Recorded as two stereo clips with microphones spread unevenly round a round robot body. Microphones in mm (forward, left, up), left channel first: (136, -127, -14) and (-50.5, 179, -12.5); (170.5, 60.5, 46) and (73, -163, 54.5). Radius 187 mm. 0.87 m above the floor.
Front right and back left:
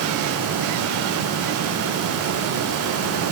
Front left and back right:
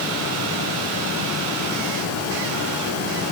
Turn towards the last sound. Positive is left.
No sound to turn to.